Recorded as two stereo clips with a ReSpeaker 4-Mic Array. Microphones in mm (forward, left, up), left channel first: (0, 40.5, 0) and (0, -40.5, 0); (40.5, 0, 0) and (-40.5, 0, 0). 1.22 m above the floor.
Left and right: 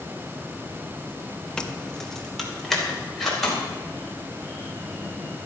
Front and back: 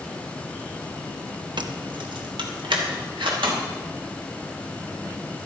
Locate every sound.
1.6 s keys jangling: 170° left, 0.9 m; by 3.6 s straight behind, 4 m